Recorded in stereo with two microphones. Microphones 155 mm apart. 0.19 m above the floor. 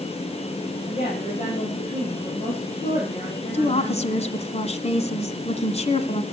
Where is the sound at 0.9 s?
55° left (ahead or behind), 8 m.